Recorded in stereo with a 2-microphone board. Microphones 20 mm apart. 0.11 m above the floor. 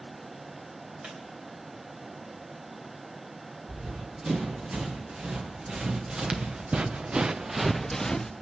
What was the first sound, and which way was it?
A squeak, 60° right (ahead or behind).